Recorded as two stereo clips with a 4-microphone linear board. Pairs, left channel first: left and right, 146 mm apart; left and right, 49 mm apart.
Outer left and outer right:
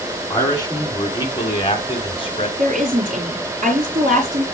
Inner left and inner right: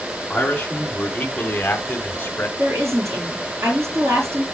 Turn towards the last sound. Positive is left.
turn(degrees=-65)  # may be behind; listen again after turning